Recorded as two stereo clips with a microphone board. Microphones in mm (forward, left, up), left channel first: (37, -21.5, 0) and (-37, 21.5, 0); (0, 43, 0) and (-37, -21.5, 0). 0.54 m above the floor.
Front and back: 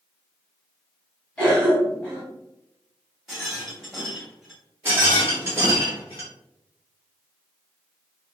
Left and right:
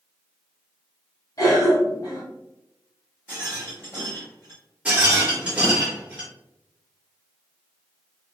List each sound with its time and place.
1.4 s a cough: 45° left, 1.3 m
3.3 s a rattle: 65° left, 1.4 m
4.8 s a rattle: 175° right, 1.2 m